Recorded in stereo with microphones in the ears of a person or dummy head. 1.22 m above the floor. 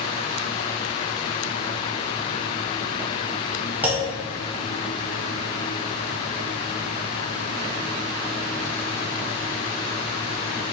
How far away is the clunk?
About 0.8 m.